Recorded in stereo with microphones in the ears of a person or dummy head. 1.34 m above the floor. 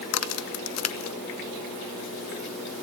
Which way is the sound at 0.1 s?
80° left.